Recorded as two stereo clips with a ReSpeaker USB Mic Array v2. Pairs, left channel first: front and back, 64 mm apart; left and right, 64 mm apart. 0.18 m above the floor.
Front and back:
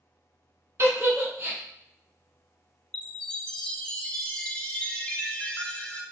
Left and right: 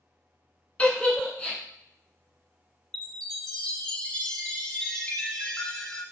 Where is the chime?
40° left, 0.5 m.